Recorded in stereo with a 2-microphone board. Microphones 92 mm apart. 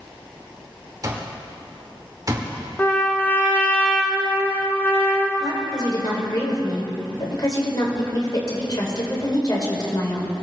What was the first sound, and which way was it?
An alarm clock, 40° right (ahead or behind).